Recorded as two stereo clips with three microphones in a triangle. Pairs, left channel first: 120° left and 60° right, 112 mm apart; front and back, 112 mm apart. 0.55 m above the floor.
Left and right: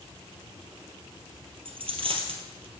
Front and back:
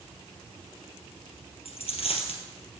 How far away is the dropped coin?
About 2 m.